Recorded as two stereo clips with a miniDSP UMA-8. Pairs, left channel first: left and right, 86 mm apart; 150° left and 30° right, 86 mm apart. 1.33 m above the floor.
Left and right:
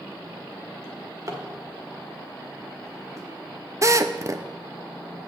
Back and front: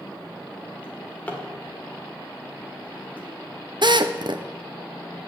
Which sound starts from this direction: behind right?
A drawer, at 0.8 s.